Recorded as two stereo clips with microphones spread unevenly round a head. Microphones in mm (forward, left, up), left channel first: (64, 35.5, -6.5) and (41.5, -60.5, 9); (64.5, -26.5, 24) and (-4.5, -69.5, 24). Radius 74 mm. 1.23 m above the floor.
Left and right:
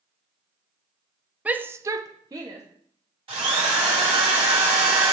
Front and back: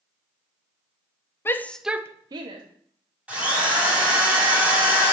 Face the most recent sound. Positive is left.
turn(degrees=-75)